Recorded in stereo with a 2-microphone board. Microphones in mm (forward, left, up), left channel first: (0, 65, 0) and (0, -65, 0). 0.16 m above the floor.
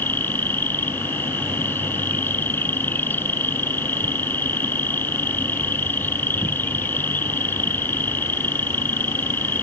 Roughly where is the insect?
Centre.